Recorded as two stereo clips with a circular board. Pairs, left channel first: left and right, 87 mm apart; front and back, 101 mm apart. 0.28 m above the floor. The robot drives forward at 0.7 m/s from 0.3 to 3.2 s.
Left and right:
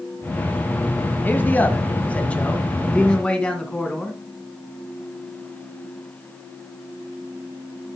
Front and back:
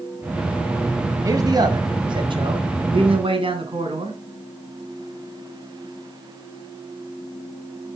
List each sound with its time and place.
1.2 s a man speaking: 145° left, 1.3 m; by 4.2 s 165° left, 2.5 m